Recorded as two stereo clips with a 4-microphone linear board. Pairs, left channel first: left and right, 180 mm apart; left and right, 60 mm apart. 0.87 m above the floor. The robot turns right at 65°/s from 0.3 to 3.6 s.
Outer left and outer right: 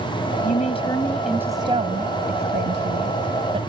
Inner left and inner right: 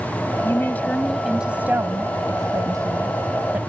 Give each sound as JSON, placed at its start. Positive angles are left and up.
{"t": 0.4, "sound": "a woman speaking", "azimuth_deg": 130}